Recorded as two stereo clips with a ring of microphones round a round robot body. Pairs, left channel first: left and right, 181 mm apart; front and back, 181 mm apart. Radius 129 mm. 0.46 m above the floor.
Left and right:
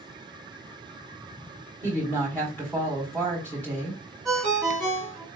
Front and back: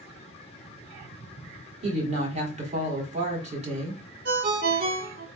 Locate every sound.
1.8 s a woman speaking: 165° left, 1.5 m
4.2 s a ringtone: straight behind, 0.9 m